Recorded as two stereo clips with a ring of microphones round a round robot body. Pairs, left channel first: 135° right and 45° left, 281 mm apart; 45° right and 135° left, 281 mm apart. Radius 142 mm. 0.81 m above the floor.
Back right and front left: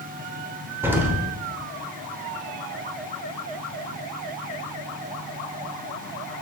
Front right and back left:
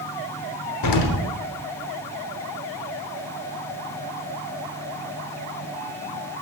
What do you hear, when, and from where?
0.8 s an explosion: 35° right, 1.0 m